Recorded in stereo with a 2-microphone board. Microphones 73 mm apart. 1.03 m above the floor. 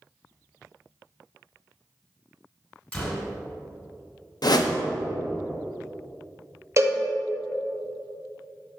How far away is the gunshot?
About 1.3 m.